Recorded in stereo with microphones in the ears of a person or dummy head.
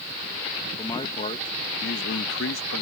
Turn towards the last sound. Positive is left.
turn(degrees=75)  # may be behind; listen again after turning